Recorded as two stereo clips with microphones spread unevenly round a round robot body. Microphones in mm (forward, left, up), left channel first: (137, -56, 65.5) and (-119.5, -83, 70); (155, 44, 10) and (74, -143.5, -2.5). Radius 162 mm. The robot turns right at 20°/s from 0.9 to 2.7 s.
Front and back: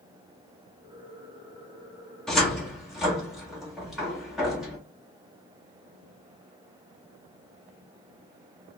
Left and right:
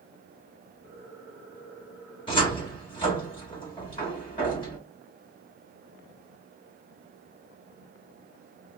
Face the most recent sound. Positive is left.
turn(degrees=100)